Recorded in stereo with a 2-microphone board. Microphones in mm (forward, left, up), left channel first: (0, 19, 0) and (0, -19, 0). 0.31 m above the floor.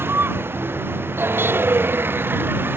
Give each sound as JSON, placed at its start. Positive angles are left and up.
{"t": 0.0, "sound": "a vehicle", "side_deg": -85}